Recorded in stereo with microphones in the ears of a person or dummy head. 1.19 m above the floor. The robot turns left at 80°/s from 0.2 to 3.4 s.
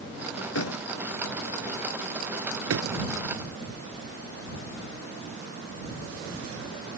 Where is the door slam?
85° left; by 3.0 s 80° right.